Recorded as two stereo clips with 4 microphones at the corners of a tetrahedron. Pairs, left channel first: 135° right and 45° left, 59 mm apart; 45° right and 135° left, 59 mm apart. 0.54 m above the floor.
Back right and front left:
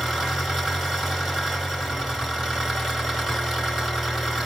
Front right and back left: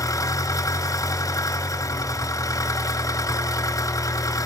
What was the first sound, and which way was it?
An engine running, 40° right.